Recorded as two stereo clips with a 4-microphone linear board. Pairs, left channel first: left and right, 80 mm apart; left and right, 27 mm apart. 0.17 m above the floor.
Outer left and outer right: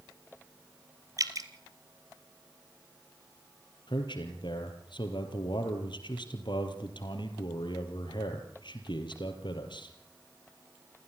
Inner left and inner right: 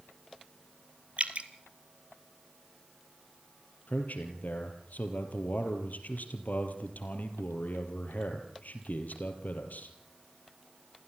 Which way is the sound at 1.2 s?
45° right (ahead or behind).